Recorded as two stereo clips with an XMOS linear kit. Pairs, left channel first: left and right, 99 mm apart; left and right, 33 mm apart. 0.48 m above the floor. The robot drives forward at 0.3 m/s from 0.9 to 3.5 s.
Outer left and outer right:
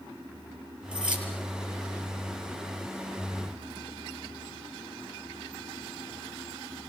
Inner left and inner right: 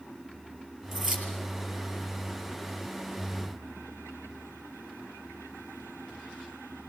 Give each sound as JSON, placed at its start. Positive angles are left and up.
{"t": 0.9, "sound": "keys jangling", "side_deg": -10, "distance_m": 6.5}